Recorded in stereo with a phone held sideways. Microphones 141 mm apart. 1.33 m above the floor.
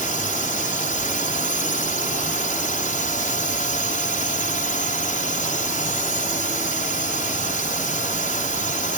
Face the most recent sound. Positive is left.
turn(degrees=70)  # may be behind; listen again after turning